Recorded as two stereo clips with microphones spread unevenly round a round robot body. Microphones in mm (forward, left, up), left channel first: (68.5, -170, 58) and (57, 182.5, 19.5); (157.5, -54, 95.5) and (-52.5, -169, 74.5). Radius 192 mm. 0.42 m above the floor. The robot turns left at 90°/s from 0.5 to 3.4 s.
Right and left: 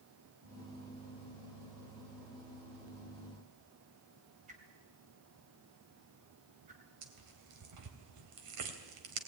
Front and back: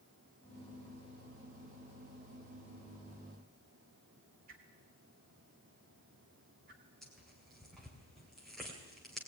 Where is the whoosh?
160° left, 2.5 m.